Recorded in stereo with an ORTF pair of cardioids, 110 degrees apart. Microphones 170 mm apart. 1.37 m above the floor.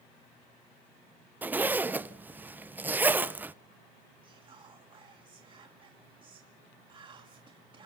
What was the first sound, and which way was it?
A zipper, 10° right.